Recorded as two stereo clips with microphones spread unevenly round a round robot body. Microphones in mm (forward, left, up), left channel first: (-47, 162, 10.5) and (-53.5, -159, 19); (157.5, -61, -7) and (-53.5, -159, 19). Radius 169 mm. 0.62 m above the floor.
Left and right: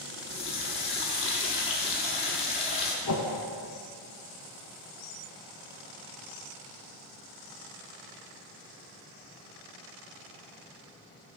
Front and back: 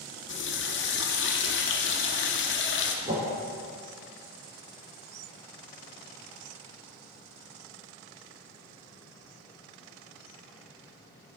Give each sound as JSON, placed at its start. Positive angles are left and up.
{"t": 0.3, "sound": "a running tap", "azimuth_deg": 20, "distance_m": 0.7}
{"t": 3.0, "sound": "a whoosh", "azimuth_deg": 130, "distance_m": 1.1}